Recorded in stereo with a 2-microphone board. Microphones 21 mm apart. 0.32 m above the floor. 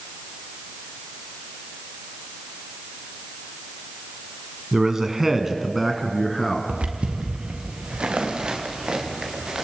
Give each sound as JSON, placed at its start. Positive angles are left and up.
{"t": 4.7, "sound": "a man speaking", "side_deg": -25, "distance_m": 2.0}
{"t": 6.7, "sound": "footsteps", "side_deg": -80, "distance_m": 4.5}